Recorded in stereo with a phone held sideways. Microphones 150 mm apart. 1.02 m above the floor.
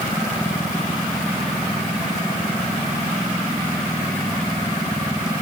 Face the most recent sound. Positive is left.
No sound to turn to.